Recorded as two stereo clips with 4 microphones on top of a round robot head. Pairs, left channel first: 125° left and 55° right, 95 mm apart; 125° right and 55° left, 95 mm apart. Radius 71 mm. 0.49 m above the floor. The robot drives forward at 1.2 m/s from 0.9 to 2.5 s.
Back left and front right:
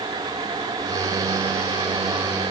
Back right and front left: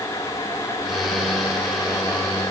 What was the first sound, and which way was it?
Only background noise.